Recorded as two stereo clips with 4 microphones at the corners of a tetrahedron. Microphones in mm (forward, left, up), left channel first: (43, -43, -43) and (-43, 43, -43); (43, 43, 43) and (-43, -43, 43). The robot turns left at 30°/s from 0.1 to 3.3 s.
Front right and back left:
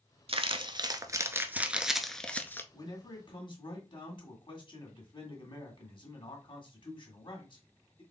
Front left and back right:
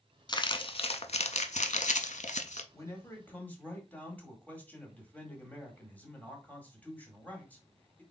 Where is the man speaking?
10° right, 1.8 m; by 8.0 s 25° right, 1.8 m.